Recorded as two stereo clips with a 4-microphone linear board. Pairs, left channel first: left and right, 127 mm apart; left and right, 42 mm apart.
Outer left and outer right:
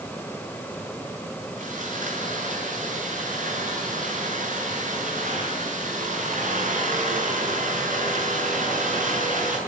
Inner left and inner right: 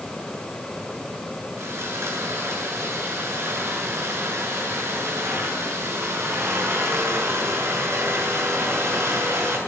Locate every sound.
1.6 s sawing: 70° right (ahead or behind), 7.5 m